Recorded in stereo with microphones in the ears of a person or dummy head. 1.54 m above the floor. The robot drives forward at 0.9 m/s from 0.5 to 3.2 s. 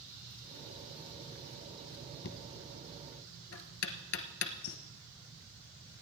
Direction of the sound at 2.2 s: 65° left (ahead or behind).